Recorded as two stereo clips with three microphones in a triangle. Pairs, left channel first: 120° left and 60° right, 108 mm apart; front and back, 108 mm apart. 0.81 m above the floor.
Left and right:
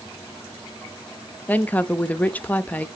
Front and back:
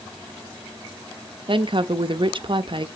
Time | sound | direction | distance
1.5 | a woman speaking | 170° right | 0.7 m